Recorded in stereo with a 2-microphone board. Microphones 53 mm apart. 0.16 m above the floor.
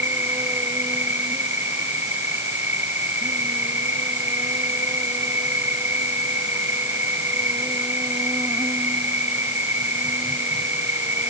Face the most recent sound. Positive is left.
turn(degrees=-50)  # may be behind; listen again after turning